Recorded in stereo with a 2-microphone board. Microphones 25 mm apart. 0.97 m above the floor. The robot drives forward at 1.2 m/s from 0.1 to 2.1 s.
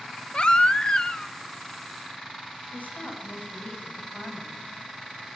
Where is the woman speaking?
65° left (ahead or behind), 6.5 m.